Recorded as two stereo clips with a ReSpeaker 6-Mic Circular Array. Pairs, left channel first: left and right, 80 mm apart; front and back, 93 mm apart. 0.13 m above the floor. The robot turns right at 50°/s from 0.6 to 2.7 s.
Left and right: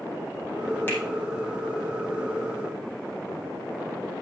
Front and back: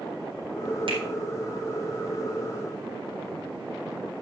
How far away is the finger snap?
About 4 m.